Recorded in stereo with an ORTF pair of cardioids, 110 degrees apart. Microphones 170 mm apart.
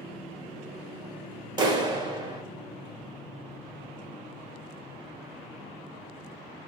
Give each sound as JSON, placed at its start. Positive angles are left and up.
{"t": 1.6, "sound": "a clap", "azimuth_deg": -25, "distance_m": 1.0}